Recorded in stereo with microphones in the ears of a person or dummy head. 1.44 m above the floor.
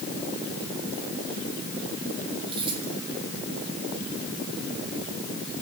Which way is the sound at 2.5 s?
30° right (ahead or behind).